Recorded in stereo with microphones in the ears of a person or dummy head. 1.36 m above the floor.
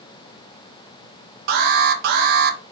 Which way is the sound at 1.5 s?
55° right (ahead or behind).